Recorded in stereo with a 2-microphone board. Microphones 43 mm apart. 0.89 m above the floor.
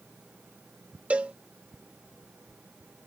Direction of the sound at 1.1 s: 30° right (ahead or behind).